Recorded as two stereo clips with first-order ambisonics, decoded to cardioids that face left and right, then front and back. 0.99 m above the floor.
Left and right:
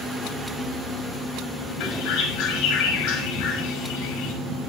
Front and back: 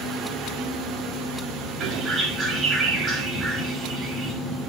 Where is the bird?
115° left, 5.5 m.